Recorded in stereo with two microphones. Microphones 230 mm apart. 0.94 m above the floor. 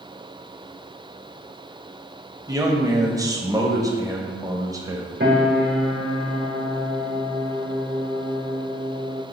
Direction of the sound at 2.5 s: 15° right (ahead or behind).